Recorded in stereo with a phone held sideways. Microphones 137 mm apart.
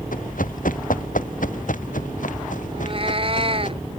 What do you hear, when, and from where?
0.1 s running footsteps: 80° left; by 3.7 s 70° left (ahead or behind)
2.7 s a cat meowing: 45° right (ahead or behind)